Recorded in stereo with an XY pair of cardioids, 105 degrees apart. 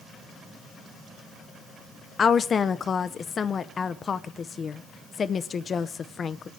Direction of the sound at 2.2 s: 40° left.